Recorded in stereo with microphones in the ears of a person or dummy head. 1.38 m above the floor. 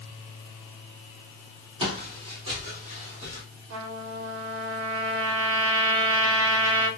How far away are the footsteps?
About 1.8 m.